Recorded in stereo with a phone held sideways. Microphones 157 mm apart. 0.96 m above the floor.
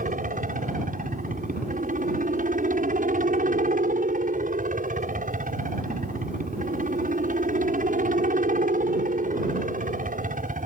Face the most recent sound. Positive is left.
turn(degrees=-60)  # may be behind; listen again after turning